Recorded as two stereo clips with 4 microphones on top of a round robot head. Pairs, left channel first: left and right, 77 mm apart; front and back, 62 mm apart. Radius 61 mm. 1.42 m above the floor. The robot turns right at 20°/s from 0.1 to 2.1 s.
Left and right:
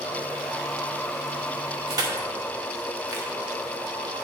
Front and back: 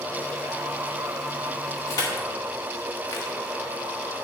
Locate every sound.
1.9 s crushing: 40° right, 1.4 m